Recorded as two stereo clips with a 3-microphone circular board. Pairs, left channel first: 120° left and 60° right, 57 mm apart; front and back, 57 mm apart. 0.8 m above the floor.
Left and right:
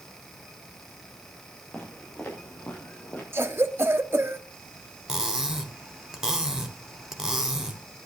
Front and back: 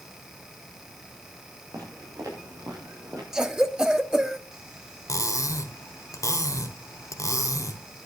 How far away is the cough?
About 1.3 m.